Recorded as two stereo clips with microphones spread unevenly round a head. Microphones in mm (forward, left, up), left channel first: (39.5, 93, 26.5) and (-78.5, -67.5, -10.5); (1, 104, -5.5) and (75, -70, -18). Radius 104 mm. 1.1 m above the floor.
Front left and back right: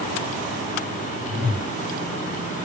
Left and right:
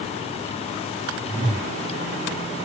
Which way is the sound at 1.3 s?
20° right.